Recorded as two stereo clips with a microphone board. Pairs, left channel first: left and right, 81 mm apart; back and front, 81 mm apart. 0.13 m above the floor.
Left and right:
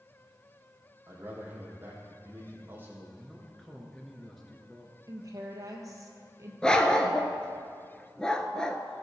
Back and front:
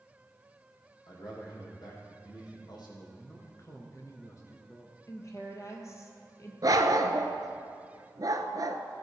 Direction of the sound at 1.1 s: 155° right.